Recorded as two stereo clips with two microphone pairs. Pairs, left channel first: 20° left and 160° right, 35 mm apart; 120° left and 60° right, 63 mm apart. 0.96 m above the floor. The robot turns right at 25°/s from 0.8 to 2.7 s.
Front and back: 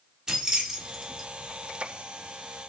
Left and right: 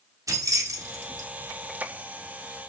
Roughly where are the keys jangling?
Right.